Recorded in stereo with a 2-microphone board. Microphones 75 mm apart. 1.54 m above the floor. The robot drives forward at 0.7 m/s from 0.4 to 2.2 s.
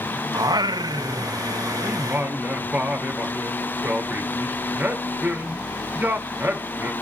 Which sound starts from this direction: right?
Singing, at 0.3 s.